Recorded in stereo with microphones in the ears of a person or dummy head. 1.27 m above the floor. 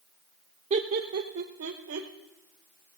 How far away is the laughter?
About 0.6 m.